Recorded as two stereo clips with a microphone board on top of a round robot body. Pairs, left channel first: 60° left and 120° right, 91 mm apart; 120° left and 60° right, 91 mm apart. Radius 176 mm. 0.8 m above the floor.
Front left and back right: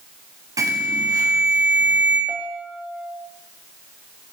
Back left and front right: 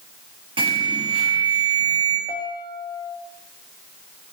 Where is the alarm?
70° right, 8 m.